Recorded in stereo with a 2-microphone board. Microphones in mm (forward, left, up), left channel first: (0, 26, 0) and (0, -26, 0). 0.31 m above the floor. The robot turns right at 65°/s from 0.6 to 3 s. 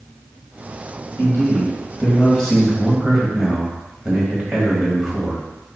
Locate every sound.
1.2 s a man speaking: 80° left, 1.5 m; by 5.4 s 160° right, 1.5 m